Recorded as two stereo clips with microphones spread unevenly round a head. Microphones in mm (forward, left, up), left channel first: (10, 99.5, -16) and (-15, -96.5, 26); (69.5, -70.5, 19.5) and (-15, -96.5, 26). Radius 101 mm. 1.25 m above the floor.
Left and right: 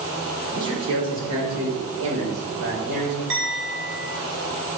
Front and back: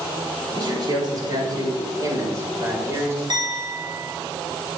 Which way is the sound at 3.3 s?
130° right.